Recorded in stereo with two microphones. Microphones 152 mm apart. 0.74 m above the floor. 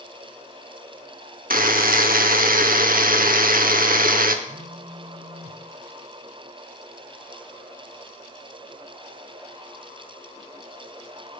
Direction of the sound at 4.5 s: 45° left (ahead or behind).